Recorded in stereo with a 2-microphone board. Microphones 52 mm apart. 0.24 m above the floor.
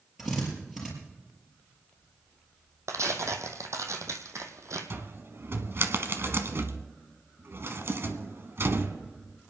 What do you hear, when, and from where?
0.2 s a drill: 10° right (ahead or behind), 5 m
2.9 s tearing paper: 90° right, 1.5 m
4.9 s a cupboard door: 55° right (ahead or behind), 1.1 m